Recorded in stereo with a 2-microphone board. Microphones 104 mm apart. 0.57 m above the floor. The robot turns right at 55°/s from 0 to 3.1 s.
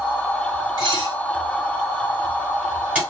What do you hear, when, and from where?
0.8 s dishes clattering: 45° right (ahead or behind), 1.3 m; by 3.0 s 10° right (ahead or behind), 1.3 m